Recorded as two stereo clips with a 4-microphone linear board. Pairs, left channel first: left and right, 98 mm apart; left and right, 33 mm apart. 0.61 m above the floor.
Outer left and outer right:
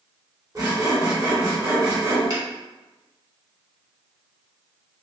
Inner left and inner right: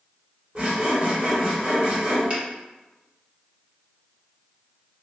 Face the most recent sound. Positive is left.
turn(degrees=-45)  # may be behind; listen again after turning